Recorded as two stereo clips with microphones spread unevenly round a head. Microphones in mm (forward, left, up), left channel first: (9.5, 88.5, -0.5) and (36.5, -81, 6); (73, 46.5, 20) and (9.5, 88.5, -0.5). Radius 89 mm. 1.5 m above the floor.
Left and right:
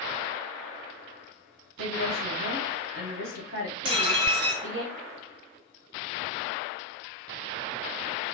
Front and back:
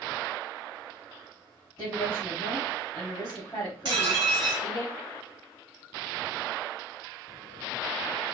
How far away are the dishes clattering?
About 1.2 m.